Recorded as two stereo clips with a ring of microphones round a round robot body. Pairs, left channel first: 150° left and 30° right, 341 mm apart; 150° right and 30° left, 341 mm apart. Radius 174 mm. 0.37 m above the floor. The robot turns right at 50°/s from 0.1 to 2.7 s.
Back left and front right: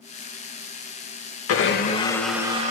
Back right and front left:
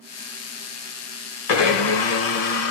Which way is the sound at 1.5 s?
160° right.